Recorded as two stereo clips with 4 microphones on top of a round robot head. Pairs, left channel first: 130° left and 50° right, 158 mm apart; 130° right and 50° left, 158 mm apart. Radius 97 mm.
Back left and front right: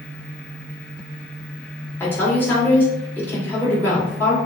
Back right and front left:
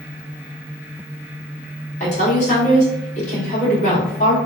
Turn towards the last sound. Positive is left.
turn(degrees=-155)